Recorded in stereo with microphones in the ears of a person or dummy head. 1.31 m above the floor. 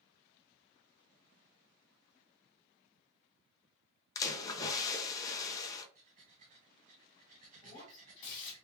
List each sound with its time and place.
4.2 s a splash: 20° left (ahead or behind), 0.6 m
6.0 s breathing: 35° right (ahead or behind), 1.0 m
7.6 s breaking glass: 40° left (ahead or behind), 1.7 m